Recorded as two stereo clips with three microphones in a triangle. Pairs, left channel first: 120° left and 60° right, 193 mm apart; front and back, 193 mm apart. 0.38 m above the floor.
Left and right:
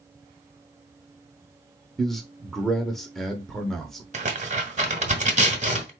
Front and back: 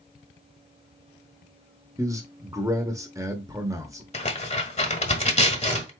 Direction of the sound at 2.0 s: 155° right.